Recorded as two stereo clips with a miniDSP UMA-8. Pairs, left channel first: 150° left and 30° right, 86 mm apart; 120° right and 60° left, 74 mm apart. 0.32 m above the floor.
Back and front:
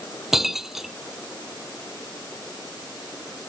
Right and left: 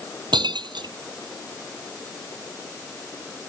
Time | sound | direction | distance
0.3 | breaking glass | 55° left | ?